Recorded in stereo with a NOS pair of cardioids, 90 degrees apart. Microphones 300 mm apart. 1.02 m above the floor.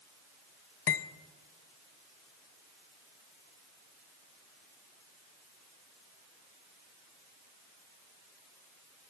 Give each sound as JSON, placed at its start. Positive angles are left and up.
{"t": 0.9, "sound": "cutlery clinking", "azimuth_deg": 45, "distance_m": 0.6}